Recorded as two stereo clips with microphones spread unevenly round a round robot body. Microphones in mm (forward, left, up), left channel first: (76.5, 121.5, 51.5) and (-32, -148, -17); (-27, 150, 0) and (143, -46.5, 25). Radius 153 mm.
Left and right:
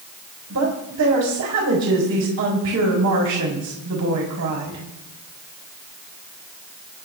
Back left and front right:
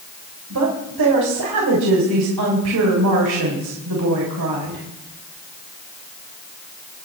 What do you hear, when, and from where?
0.5 s a woman speaking: 80° right, 3.5 m